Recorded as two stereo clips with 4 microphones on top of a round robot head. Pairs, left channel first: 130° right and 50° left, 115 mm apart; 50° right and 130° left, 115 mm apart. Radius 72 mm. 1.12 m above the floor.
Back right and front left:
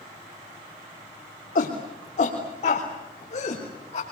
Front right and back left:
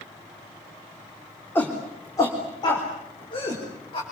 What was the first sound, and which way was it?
A shout, 120° right.